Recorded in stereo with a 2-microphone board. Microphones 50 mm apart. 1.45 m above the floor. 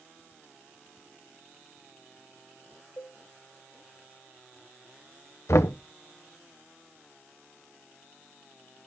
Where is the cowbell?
55° left (ahead or behind), 2 m.